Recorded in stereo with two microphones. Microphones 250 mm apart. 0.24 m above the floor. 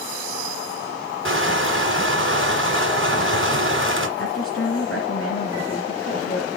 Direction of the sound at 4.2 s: 55° left (ahead or behind).